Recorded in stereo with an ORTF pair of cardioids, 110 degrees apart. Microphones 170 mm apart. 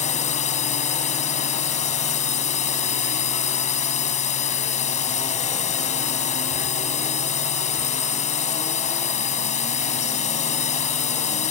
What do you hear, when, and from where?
0.0 s a drone: 45° left